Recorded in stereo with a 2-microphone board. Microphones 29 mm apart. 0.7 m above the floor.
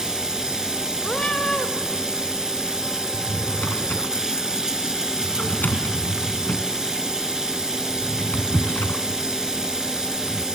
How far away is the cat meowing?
About 1.5 m.